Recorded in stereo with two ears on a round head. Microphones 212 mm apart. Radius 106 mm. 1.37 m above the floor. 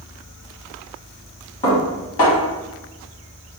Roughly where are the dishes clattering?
Left.